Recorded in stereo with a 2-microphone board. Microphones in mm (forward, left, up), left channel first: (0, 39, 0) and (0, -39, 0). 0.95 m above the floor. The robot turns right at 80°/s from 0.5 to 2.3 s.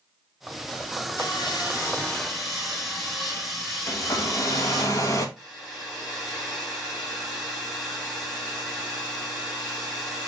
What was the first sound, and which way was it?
Sawing, 90° left.